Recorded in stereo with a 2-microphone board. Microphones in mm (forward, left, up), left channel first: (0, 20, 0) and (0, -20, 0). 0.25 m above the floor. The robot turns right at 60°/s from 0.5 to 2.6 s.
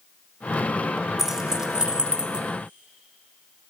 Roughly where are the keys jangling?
Centre.